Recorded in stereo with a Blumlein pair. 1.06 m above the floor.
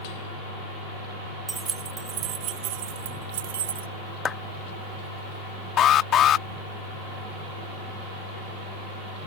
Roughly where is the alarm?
Ahead left.